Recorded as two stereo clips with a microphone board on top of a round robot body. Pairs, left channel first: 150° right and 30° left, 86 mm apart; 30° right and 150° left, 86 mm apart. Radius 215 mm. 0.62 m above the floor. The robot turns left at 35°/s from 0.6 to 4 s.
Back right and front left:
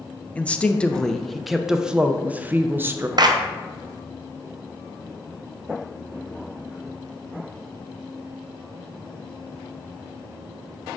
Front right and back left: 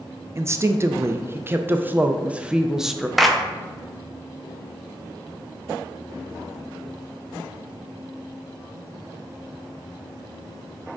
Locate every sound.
0.3 s a woman speaking: 150° left, 0.6 m; by 3.1 s 60° left, 0.6 m
3.2 s a clap: 60° left, 0.7 m; by 3.4 s 55° left, 0.7 m